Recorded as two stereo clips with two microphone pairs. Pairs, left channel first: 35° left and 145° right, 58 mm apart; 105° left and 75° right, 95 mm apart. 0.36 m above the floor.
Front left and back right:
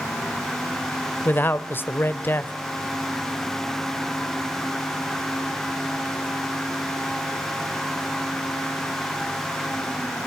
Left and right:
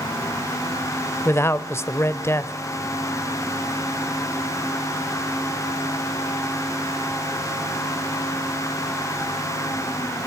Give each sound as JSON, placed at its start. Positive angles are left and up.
{"t": 1.2, "sound": "a man speaking", "azimuth_deg": 60, "distance_m": 1.0}